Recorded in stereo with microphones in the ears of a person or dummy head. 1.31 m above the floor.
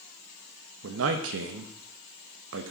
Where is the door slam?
No door slam in this recording.